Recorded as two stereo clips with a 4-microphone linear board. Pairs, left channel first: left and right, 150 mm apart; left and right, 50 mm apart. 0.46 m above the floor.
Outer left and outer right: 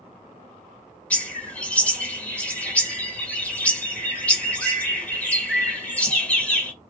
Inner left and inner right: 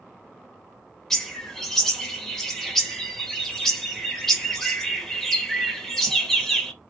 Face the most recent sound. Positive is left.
turn(degrees=10)  # may be behind; listen again after turning